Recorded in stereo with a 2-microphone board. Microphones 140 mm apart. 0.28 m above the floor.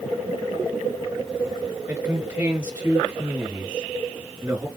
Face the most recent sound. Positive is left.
turn(degrees=-10)  # may be behind; listen again after turning